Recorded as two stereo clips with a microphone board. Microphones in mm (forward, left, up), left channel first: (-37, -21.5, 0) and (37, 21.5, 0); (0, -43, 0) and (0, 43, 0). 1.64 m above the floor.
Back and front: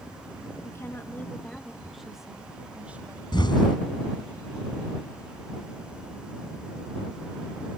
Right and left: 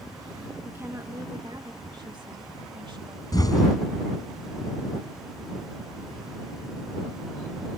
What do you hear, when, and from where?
0.6 s a woman speaking: 155° left; by 3.2 s 100° left
3.3 s an explosion: 130° right